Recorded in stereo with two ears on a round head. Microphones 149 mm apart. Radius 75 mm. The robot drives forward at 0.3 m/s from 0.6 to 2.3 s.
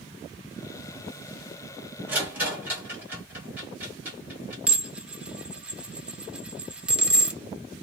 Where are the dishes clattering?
5° right (ahead or behind), 0.5 m.